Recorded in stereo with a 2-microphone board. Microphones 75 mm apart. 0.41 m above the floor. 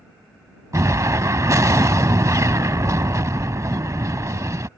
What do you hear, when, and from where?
0.7 s an explosion: 45° right (ahead or behind)